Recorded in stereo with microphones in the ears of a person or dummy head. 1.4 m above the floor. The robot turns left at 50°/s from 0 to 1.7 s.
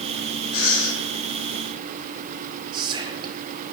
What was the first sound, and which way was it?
Breathing, 75° left (ahead or behind).